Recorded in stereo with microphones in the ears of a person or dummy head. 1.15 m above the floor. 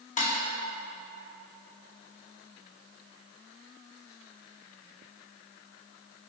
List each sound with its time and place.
0.2 s dishes clattering: 40° left (ahead or behind), 1.0 m